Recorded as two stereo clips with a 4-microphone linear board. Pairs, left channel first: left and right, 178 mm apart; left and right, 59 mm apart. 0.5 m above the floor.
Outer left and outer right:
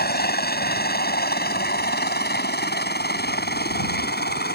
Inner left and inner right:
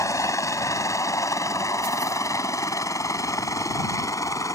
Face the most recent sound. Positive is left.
turn(degrees=65)  # may be behind; listen again after turning